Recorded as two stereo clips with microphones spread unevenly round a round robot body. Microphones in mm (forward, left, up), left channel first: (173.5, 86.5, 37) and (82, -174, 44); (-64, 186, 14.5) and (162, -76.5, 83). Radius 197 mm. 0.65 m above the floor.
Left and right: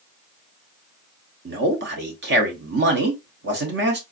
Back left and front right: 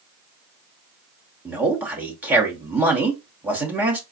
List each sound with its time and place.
1.4 s a man speaking: 145° right, 0.8 m